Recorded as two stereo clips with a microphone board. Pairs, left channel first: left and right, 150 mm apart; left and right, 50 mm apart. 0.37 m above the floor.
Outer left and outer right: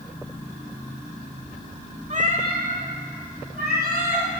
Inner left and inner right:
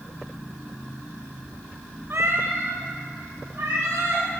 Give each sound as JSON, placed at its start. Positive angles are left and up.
{"t": 2.1, "sound": "a cat meowing", "side_deg": -55, "distance_m": 0.6}